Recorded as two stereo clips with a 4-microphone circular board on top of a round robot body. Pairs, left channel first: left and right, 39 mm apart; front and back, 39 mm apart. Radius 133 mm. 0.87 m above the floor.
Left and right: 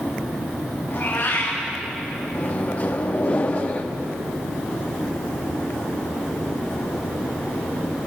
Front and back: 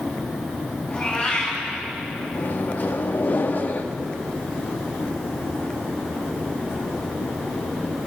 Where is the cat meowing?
55° left, 5.5 m.